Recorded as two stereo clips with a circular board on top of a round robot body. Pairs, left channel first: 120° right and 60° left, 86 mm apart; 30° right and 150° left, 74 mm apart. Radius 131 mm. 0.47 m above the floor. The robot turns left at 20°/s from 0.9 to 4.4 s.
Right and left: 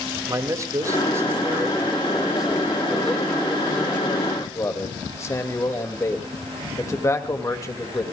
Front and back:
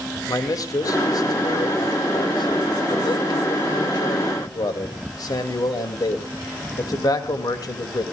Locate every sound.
0.3 s a man speaking: 5° left, 2.5 m; by 8.0 s 65° right, 2.5 m